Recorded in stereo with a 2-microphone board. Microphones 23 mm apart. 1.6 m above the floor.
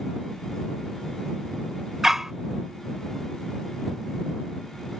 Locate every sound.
2.0 s a dog barking: 15° right (ahead or behind)